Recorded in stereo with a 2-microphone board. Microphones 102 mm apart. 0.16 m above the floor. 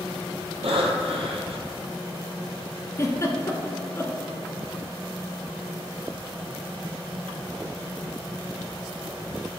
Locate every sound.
0.6 s breathing: 75° right (ahead or behind), 1.7 m
3.0 s a giggle: 30° left (ahead or behind), 1.2 m